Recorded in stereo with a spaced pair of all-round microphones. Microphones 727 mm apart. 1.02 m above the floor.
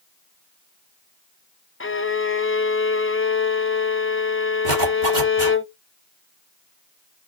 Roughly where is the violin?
Centre.